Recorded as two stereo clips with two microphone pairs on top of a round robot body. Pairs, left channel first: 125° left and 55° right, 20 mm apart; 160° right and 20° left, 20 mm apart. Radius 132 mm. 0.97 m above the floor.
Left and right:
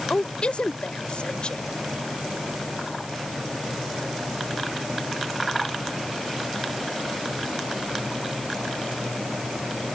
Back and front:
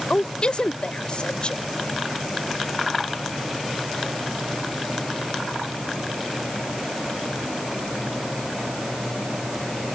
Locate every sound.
0.1 s a woman speaking: 165° left